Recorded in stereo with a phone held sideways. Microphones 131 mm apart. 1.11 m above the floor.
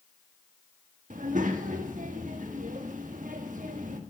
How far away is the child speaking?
About 1.3 m.